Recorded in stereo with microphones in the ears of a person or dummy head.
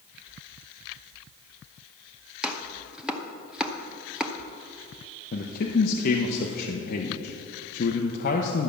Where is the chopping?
5° right (ahead or behind), 0.6 m.